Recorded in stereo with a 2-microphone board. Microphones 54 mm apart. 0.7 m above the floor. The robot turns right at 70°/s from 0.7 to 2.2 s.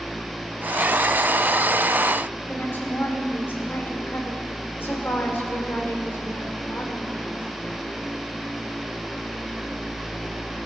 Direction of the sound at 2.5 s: 45° left (ahead or behind).